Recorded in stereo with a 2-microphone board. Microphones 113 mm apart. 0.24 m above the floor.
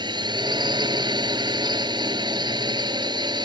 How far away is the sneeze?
No sneeze in this recording.